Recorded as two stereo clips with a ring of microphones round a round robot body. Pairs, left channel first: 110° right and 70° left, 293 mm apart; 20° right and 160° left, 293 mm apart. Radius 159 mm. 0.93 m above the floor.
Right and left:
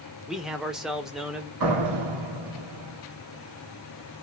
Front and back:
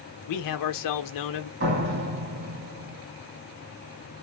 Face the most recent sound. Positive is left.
turn(degrees=100)